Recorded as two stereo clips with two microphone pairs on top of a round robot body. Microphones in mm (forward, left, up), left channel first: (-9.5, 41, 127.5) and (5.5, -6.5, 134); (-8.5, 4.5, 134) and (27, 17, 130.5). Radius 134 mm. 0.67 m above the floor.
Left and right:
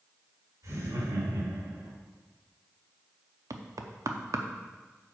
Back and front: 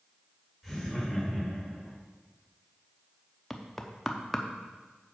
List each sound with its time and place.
0.6 s laughter: 60° right, 3.5 m; by 1.9 s 65° right, 4.5 m
3.5 s knocking: 75° right, 0.8 m